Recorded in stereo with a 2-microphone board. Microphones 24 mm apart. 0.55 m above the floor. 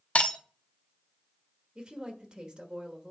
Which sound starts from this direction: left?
Breaking glass, at 0.1 s.